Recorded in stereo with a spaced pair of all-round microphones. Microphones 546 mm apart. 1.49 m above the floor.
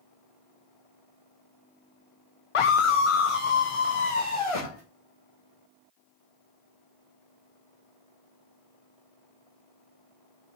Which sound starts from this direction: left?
A scream, at 2.5 s.